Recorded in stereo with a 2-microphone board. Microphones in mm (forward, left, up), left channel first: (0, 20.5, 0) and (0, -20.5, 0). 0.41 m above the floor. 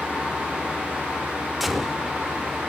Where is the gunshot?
5° right (ahead or behind), 0.6 m.